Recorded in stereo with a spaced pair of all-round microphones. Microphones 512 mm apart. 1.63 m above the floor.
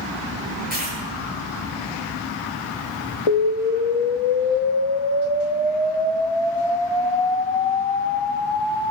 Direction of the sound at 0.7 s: 20° right (ahead or behind).